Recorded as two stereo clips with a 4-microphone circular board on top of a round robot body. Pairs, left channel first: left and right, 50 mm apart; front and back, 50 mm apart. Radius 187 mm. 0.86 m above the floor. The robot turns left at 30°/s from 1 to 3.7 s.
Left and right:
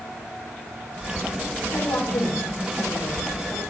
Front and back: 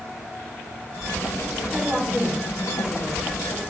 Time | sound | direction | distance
1.7 | a woman speaking | 85° left | 4 m